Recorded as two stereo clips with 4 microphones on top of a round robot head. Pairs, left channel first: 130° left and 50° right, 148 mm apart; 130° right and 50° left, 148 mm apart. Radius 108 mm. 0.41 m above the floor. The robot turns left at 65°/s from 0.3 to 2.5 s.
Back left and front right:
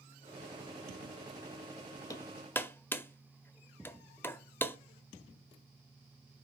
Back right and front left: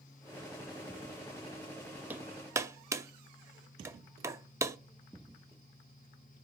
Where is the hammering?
105° left, 0.8 m; by 4.8 s 80° left, 0.8 m.